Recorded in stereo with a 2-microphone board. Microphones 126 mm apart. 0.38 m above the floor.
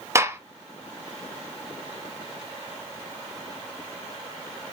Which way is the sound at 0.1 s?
25° right (ahead or behind).